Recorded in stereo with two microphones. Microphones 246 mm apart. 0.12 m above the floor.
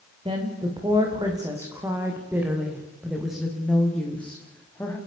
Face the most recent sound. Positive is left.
turn(degrees=10)  # may be behind; listen again after turning